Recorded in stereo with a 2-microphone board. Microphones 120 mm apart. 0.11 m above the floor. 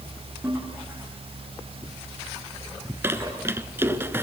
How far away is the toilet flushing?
About 6.5 m.